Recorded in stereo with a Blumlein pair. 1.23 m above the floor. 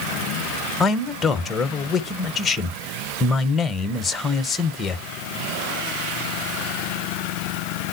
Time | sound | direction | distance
0.8 | a man speaking | 15° left | 0.8 m